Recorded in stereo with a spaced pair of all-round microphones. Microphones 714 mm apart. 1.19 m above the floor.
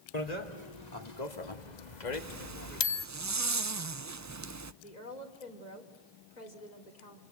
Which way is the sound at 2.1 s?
25° right (ahead or behind).